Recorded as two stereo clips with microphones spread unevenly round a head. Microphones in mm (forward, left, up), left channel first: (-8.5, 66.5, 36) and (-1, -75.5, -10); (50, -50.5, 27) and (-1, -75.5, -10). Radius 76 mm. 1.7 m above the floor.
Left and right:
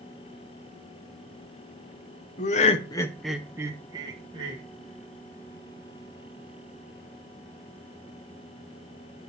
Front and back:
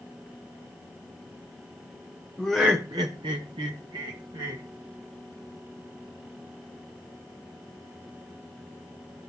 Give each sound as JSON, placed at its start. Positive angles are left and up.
{"t": 2.4, "sound": "laughter", "azimuth_deg": 85, "distance_m": 0.9}